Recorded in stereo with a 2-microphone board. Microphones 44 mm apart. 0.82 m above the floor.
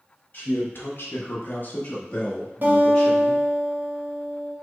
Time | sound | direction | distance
0.3 | a man speaking | 40° left (ahead or behind) | 0.8 m
2.6 | a guitar | 50° right (ahead or behind) | 0.9 m